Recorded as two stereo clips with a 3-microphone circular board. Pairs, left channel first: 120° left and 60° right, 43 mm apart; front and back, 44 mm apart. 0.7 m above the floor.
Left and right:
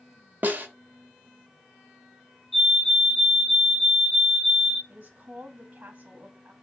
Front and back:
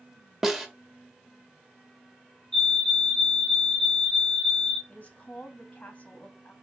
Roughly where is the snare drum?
Right.